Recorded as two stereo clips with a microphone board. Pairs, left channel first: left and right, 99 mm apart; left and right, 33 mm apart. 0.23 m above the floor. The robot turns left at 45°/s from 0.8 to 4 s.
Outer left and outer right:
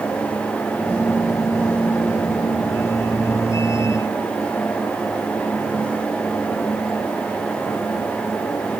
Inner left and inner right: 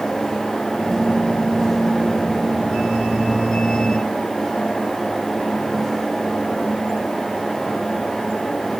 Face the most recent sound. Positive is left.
No sound to turn to.